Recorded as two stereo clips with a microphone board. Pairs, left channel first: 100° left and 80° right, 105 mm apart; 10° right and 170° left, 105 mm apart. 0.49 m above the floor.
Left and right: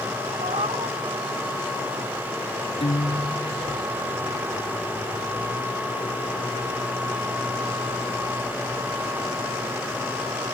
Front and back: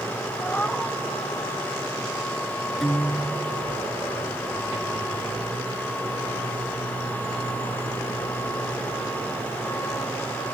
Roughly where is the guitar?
Left.